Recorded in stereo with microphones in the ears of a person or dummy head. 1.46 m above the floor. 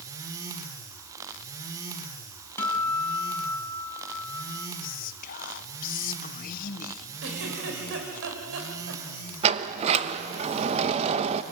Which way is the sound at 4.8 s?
50° left (ahead or behind).